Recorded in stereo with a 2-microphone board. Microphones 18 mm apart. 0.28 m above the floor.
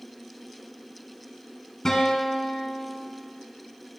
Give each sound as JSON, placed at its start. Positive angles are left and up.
{"t": 1.9, "sound": "a guitar", "side_deg": 35, "distance_m": 1.4}